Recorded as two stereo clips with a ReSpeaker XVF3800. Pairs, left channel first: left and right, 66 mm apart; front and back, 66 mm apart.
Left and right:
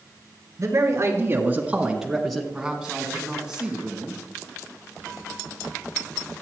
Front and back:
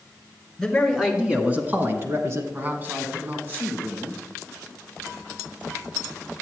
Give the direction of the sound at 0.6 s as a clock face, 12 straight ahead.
3 o'clock.